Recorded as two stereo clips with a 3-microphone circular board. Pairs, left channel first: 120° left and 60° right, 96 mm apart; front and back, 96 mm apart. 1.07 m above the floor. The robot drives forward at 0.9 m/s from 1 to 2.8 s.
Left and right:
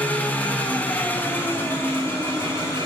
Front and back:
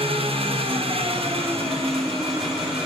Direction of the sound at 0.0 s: 165° right.